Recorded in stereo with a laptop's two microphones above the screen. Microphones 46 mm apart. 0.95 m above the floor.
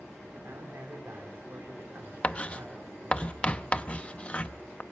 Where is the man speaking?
70° right (ahead or behind), 3 m.